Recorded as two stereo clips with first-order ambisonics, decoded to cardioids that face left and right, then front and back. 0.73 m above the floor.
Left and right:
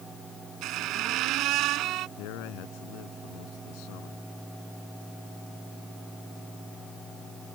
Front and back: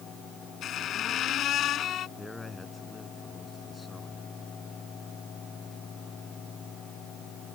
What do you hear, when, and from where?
0.6 s a squeak: 50° right
2.2 s a man speaking: 80° left